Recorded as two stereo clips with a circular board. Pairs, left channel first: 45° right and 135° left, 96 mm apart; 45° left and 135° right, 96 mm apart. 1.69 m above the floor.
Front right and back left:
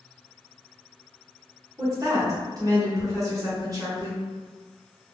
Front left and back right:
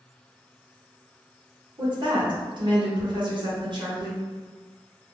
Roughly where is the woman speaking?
Behind.